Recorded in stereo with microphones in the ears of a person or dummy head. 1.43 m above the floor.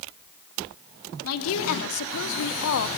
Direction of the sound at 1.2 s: 75° left (ahead or behind).